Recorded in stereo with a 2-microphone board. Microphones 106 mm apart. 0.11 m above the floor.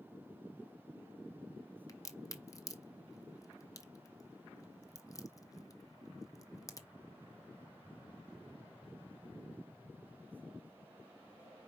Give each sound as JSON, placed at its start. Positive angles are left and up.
{"t": 1.9, "sound": "a crack", "side_deg": 30, "distance_m": 0.7}